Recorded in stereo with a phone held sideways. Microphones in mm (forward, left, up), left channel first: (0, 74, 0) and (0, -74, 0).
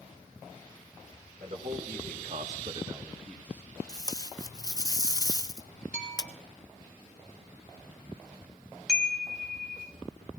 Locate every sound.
1.4 s a man speaking: 55° right (ahead or behind), 2.5 m; by 3.7 s 20° left (ahead or behind), 1.6 m
3.9 s tape being pulled: 25° left (ahead or behind), 0.5 m
5.9 s a bell: 55° left (ahead or behind), 6 m
8.9 s a chime: 5° right (ahead or behind), 1.1 m